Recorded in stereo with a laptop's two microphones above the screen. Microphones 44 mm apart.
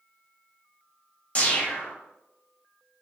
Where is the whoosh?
30° left (ahead or behind), 0.7 m.